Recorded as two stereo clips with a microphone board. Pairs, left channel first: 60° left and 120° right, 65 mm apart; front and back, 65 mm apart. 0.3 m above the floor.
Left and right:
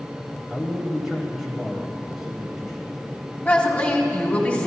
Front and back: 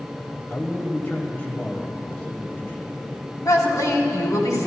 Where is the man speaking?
40° right, 1.1 m.